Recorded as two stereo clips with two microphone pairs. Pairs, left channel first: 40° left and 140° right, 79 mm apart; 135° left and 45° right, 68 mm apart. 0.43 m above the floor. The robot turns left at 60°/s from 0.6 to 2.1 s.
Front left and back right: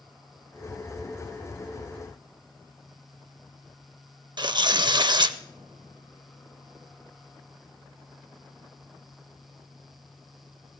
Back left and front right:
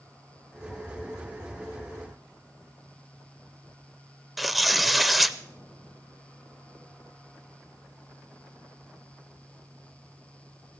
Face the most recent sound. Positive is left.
turn(degrees=-135)